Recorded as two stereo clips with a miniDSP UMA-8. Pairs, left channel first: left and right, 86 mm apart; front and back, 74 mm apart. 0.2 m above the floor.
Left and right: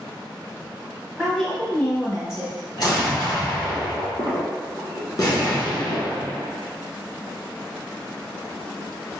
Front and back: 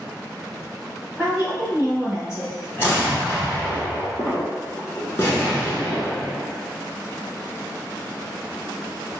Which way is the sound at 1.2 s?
170° left.